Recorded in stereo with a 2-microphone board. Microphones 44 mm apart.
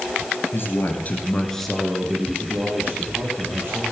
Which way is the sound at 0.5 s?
55° left (ahead or behind).